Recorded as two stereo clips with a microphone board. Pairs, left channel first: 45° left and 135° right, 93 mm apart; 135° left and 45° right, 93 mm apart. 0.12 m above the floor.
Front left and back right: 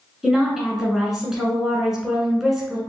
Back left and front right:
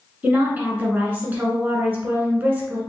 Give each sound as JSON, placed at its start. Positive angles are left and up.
{"t": 0.2, "sound": "a woman speaking", "azimuth_deg": -60, "distance_m": 1.1}